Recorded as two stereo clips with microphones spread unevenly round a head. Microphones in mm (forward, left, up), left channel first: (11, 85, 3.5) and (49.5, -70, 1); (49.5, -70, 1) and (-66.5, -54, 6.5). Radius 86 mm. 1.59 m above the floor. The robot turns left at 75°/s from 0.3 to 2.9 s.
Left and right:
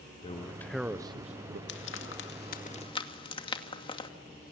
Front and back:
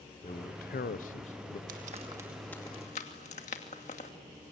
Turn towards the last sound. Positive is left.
turn(degrees=45)